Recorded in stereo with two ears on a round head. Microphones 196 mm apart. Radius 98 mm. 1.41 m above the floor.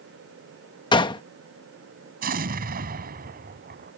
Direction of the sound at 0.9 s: 20° left (ahead or behind).